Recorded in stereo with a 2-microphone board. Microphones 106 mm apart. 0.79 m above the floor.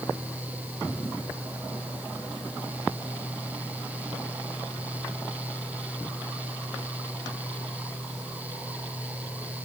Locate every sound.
Only background noise.